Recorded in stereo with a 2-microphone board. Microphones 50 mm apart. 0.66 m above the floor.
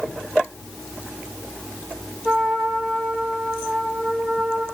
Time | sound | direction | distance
2.2 | a trumpet | 5° right (ahead or behind) | 9.5 m